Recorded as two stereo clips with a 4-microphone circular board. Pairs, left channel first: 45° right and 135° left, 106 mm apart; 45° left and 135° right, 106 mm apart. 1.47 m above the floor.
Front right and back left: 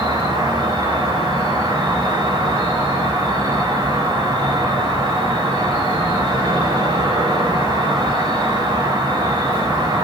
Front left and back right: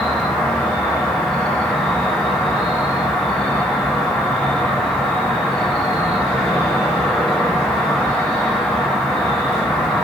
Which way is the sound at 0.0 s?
130° left.